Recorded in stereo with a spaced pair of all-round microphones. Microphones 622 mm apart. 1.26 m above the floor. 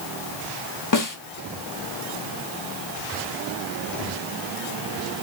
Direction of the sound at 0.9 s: 30° left (ahead or behind).